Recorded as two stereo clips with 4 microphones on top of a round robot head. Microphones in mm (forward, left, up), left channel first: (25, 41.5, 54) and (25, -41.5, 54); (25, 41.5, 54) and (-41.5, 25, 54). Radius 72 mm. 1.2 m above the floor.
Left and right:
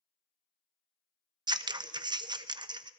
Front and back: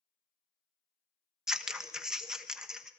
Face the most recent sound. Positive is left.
turn(degrees=-85)